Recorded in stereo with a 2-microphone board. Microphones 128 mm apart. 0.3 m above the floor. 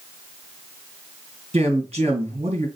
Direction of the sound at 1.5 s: 55° right (ahead or behind).